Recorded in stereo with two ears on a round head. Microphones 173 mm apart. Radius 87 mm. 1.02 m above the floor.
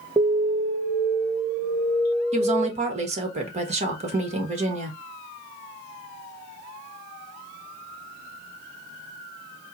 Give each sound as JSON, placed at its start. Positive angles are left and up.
{"t": 0.2, "sound": "an alarm", "side_deg": -10, "distance_m": 0.8}
{"t": 2.3, "sound": "a woman speaking", "side_deg": -35, "distance_m": 1.4}